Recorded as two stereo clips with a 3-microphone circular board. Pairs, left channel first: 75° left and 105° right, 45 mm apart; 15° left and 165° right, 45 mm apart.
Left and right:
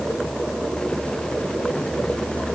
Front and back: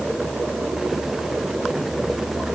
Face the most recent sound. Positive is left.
No sound to turn to.